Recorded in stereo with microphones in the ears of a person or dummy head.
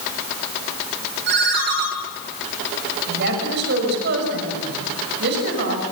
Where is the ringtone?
60° right (ahead or behind), 6 m.